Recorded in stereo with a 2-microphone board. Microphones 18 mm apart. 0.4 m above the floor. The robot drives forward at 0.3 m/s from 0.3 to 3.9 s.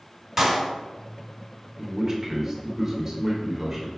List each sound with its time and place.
0.4 s a clap: 10° right (ahead or behind), 1.7 m
1.8 s a man speaking: 30° right (ahead or behind), 0.9 m; by 3.9 s 25° right (ahead or behind), 1.0 m